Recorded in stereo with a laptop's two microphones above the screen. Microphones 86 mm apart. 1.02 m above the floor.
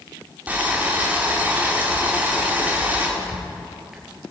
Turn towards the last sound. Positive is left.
turn(degrees=-5)  # may be behind; listen again after turning